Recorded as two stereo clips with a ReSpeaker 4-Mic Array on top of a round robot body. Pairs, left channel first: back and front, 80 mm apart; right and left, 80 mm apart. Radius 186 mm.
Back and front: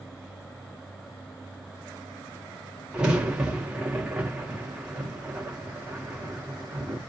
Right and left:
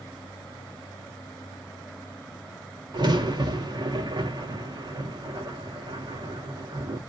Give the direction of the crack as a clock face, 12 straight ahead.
9 o'clock.